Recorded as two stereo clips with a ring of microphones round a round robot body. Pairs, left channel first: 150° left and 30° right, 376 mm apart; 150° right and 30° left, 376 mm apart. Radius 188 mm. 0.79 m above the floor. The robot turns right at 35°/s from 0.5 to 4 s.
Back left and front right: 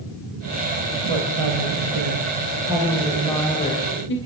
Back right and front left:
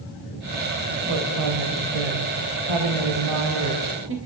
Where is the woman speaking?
15° right, 3 m; by 4.2 s 90° left, 3 m.